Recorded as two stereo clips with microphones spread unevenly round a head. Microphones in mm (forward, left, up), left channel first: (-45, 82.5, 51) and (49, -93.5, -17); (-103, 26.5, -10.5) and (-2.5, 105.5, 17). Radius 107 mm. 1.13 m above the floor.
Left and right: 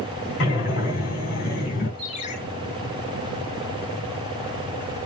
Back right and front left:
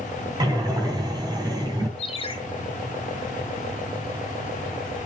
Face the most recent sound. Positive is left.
turn(degrees=170)